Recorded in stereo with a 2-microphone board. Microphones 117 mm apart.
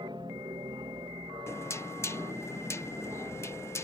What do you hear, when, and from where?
0.0 s an aircraft: 40° right (ahead or behind)
1.5 s knocking: 25° left (ahead or behind)